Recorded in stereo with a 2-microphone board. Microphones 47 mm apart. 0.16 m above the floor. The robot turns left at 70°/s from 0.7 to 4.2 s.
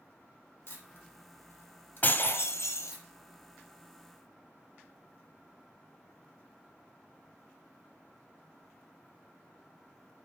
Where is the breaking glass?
145° left, 1.6 m; by 2.9 s 80° left, 1.6 m.